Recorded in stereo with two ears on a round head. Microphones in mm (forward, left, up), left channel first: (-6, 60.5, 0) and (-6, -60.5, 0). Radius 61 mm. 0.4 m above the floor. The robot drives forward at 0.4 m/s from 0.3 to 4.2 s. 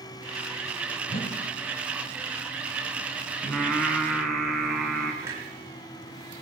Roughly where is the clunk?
Right.